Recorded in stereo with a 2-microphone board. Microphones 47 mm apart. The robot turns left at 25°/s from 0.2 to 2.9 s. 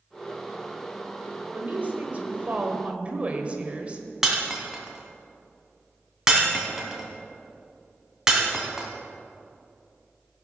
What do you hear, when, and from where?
1.5 s a woman speaking: 100° right, 1.4 m; by 4.0 s 135° right, 1.4 m
4.2 s breaking glass: 15° right (ahead or behind), 1.9 m